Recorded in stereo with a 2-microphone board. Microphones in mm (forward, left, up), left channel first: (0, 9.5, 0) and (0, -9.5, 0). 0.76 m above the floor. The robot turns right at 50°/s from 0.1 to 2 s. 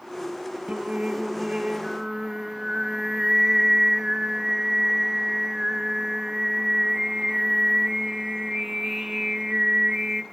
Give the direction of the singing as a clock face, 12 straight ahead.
3 o'clock.